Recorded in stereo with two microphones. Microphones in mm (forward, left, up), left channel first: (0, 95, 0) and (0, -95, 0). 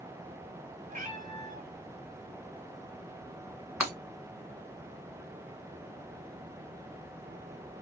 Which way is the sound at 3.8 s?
5° right (ahead or behind).